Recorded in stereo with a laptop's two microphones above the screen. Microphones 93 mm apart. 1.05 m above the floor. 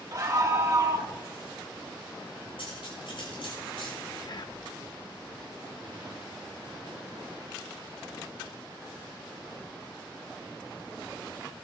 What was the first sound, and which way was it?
A scream, 35° right (ahead or behind).